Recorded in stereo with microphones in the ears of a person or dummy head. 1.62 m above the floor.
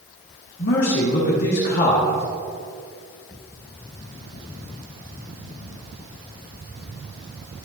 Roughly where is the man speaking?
Left.